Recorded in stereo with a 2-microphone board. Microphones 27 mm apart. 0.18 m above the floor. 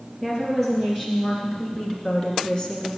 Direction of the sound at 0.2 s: Centre (ahead or behind).